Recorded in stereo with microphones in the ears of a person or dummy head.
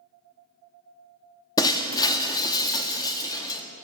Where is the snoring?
No snoring in this recording.